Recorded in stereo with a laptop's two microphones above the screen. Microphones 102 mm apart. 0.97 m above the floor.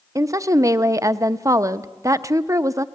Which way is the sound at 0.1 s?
30° right (ahead or behind).